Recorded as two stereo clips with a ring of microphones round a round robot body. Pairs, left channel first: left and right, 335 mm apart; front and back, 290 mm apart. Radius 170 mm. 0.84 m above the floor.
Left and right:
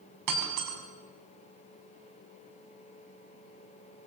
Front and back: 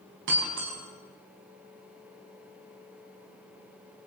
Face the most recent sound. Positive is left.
turn(degrees=-120)